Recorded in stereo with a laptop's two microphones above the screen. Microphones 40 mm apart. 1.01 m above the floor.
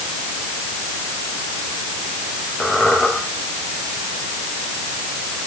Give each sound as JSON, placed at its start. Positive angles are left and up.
{"t": 2.6, "sound": "a squeak", "side_deg": 20, "distance_m": 6.5}